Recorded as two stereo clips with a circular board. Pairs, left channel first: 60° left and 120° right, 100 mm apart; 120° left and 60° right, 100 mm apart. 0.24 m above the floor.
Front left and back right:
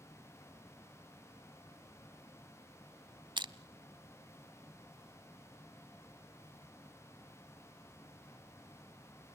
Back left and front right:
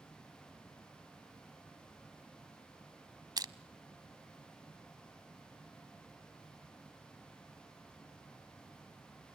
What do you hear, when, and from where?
3.4 s crushing: 95° right, 0.7 m